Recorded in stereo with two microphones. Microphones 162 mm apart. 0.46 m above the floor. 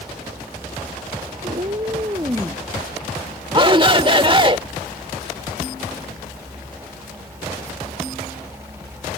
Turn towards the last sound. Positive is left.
turn(degrees=-30)  # may be behind; listen again after turning